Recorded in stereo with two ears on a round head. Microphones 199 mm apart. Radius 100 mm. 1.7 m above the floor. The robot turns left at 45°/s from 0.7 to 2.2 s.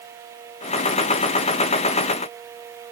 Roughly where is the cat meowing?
I don't hear a cat meowing.